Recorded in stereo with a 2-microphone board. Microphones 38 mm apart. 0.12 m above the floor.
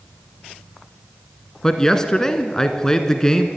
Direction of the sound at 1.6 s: 15° left (ahead or behind).